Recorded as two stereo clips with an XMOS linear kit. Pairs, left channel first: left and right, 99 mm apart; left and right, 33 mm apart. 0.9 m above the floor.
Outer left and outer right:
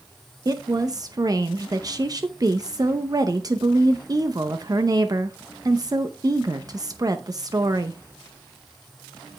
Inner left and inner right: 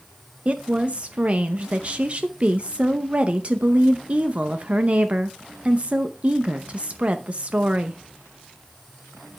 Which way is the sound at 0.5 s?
40° right (ahead or behind).